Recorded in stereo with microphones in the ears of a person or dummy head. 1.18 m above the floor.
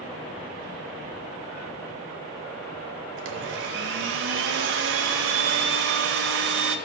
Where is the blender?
70° right (ahead or behind), 0.7 m.